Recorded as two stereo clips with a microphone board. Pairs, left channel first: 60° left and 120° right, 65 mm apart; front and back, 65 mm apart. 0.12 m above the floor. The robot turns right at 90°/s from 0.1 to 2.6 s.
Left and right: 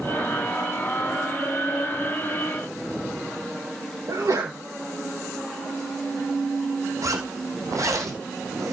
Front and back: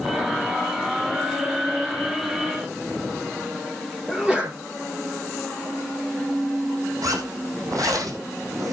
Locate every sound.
4.1 s a sneeze: 105° right, 3 m
7.0 s a zipper: 150° right, 4 m